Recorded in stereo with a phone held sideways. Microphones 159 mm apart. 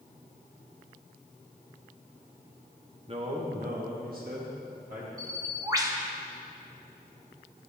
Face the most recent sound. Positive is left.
turn(degrees=-20)  # may be behind; listen again after turning